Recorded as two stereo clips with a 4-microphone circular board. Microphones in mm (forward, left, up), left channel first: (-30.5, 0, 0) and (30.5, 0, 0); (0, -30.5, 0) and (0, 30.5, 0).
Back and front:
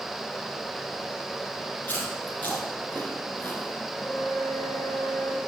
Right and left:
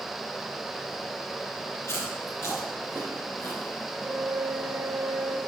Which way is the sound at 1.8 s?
130° right.